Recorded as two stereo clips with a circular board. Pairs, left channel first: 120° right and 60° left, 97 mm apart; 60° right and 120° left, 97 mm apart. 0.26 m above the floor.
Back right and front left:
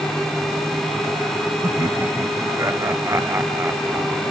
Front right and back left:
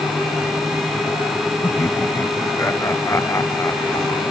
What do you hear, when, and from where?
1.6 s laughter: 5° left; by 4.2 s 5° right